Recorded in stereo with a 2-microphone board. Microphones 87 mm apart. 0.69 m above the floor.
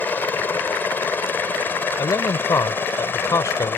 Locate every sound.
0.0 s a helicopter: 20° left (ahead or behind); by 3.8 s 25° left (ahead or behind)
2.0 s a man speaking: 40° left (ahead or behind)